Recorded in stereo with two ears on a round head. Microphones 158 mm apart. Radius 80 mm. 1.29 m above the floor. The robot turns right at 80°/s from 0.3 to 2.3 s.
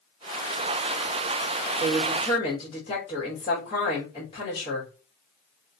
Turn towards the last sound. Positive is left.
turn(degrees=35)